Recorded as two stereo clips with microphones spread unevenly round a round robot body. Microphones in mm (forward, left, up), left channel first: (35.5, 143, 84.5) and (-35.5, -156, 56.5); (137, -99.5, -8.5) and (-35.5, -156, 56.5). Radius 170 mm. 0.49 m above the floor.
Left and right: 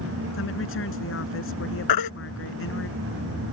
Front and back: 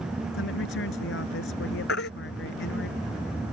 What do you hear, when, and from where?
0.3 s a woman speaking: 25° left
1.9 s a baby crying: 60° left